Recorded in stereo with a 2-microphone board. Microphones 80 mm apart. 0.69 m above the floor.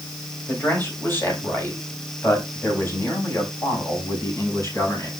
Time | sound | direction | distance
0.5 | a man speaking | 25° left (ahead or behind) | 4 m